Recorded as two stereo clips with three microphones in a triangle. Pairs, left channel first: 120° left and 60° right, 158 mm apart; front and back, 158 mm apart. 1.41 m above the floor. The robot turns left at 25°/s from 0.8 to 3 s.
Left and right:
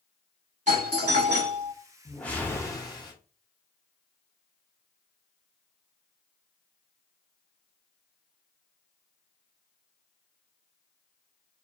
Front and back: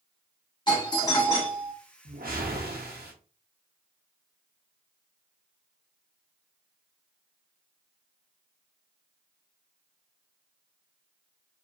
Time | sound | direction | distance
0.7 | a doorbell | 55° right | 1.4 m
2.0 | a whoosh | 155° right | 0.7 m